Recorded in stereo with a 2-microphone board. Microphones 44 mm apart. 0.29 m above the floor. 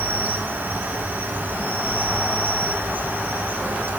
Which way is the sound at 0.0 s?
45° right (ahead or behind).